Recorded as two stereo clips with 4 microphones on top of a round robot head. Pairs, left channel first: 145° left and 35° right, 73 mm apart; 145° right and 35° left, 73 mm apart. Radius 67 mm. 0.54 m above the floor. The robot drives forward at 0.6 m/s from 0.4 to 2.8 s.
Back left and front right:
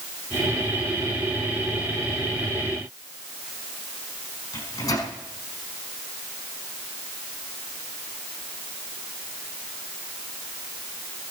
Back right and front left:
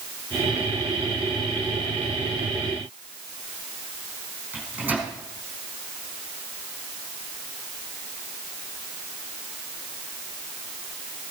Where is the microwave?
105° left, 5.5 m.